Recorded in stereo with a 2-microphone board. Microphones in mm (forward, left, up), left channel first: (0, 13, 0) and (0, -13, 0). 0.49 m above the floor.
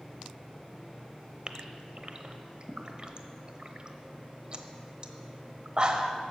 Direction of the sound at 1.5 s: 35° right (ahead or behind).